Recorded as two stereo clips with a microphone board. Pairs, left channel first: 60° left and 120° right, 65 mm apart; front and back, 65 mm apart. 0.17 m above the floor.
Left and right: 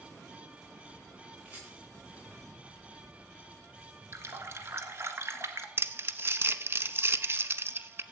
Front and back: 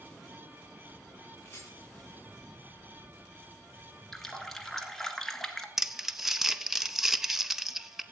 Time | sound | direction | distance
1.4 | a rattle | 50° right | 9 m
4.1 | a running tap | 85° right | 1.6 m
5.8 | crumpling | 100° right | 0.7 m